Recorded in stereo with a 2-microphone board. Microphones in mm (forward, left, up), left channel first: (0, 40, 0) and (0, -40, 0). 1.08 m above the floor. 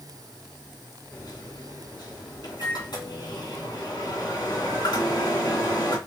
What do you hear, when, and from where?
1.1 s a microwave: 70° left (ahead or behind), 2.5 m